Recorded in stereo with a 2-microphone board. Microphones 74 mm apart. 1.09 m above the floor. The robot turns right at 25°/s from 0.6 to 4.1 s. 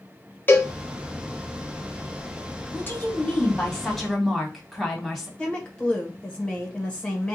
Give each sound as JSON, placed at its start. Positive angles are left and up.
{"t": 0.5, "sound": "a cowbell", "side_deg": 30, "distance_m": 1.0}
{"t": 2.7, "sound": "a woman speaking", "azimuth_deg": 145, "distance_m": 1.8}
{"t": 5.4, "sound": "a woman speaking", "side_deg": 15, "distance_m": 1.2}